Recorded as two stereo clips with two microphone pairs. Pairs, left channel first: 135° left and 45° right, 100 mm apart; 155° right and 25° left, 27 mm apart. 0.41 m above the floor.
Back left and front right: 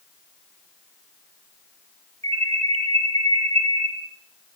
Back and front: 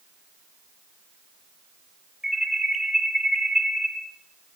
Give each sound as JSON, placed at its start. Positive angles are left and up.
{"t": 2.2, "sound": "an alarm", "azimuth_deg": -55, "distance_m": 9.0}